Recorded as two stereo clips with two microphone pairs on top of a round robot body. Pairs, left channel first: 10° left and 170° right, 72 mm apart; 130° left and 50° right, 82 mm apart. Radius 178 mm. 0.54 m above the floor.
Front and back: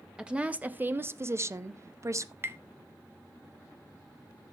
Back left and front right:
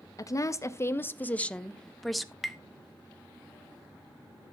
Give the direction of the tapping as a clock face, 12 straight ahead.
5 o'clock.